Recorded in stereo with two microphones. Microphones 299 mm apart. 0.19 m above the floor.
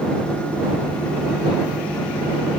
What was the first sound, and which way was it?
Only background noise.